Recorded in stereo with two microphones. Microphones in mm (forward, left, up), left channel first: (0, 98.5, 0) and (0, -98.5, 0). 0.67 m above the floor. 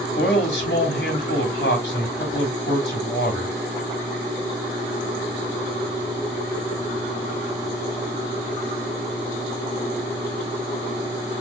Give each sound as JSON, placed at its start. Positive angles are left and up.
{"t": 0.2, "sound": "a man speaking", "side_deg": 65, "distance_m": 3.0}